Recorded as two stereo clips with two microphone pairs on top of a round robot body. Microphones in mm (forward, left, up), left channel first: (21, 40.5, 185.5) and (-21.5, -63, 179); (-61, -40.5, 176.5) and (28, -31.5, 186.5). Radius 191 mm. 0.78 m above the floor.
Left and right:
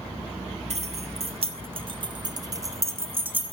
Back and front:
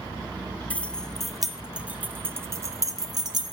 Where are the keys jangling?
100° right, 1.3 m; by 3.5 s 35° right, 1.5 m.